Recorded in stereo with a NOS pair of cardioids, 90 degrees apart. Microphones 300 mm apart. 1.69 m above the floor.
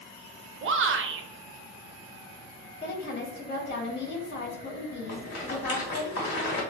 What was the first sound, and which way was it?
A shout, 40° right.